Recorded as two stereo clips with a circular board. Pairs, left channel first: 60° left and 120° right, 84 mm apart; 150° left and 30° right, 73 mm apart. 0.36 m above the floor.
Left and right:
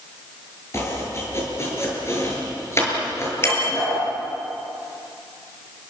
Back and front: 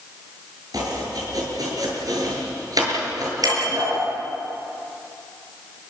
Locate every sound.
0.7 s chopping: straight ahead, 7 m
3.4 s a bicycle bell: straight ahead, 6 m